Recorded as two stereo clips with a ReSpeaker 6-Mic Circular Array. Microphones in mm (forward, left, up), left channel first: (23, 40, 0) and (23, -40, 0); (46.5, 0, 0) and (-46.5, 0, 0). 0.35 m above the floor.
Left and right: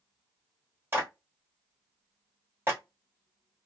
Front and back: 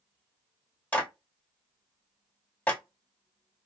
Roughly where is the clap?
Ahead right.